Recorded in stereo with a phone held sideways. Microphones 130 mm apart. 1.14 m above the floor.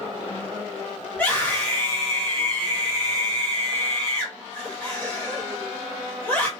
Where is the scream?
15° left (ahead or behind), 1.9 m.